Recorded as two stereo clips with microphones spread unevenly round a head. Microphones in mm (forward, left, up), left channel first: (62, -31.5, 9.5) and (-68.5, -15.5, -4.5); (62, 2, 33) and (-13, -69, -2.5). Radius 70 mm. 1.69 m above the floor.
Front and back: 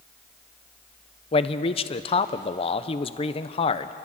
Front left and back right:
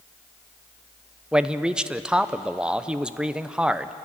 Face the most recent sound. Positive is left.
turn(degrees=-45)